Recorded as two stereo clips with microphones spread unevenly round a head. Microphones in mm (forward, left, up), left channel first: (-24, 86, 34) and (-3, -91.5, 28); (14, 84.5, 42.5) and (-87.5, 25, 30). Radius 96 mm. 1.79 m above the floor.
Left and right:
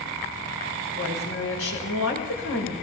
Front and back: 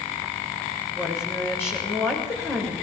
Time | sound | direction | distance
0.9 | a woman speaking | 100° left | 7 m